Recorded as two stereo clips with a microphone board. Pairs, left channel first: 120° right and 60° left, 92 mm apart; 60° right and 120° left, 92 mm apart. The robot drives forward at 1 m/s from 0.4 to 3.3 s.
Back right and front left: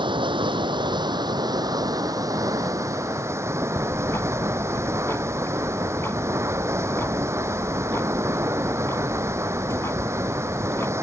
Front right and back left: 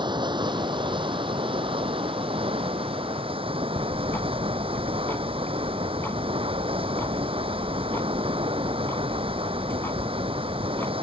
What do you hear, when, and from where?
0.0 s running water: 90° left; by 11.0 s 120° left
3.8 s ticking: 100° right